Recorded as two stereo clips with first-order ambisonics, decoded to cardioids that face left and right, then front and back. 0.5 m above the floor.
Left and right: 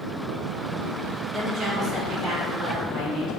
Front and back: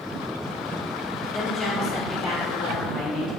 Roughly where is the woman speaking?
Right.